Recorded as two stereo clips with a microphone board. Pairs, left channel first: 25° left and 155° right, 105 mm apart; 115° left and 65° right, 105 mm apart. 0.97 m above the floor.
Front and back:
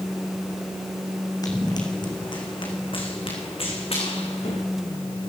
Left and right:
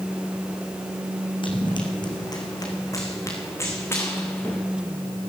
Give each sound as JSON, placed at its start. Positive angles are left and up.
{"t": 1.4, "sound": "running footsteps", "azimuth_deg": 75, "distance_m": 3.5}